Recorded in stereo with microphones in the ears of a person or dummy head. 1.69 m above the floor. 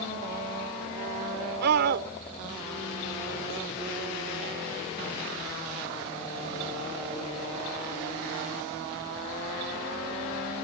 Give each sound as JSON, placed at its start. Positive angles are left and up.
{"t": 1.6, "sound": "a scream", "side_deg": -65}